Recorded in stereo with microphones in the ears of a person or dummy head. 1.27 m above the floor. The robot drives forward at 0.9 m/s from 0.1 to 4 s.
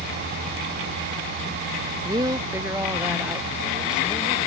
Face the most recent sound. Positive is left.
turn(degrees=-5)  # may be behind; listen again after turning